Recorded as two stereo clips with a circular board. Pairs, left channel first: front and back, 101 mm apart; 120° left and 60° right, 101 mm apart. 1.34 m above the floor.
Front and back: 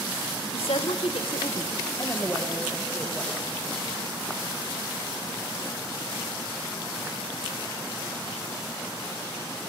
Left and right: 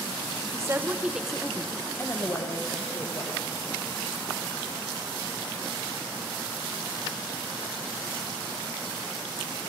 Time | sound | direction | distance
0.5 | a woman speaking | straight ahead | 1.0 m